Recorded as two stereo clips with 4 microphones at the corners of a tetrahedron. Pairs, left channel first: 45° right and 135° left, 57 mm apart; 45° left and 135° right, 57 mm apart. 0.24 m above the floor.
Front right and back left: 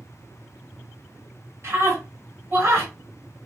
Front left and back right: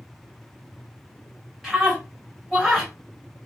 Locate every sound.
1.6 s a scream: 130° left, 2 m